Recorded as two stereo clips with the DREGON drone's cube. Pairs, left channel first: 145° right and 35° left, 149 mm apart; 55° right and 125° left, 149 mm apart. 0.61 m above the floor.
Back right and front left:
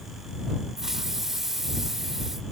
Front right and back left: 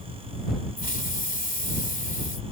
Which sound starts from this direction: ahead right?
A hiss, at 0.8 s.